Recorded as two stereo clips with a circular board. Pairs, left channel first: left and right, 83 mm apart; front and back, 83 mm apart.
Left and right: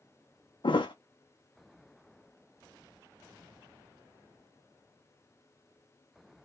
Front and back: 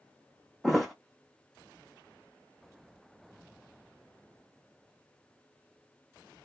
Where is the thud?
90° left, 0.5 m.